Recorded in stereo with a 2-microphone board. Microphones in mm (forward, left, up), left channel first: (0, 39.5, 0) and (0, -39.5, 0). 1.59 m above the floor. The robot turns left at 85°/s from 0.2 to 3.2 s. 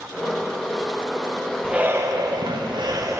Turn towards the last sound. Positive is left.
turn(degrees=-140)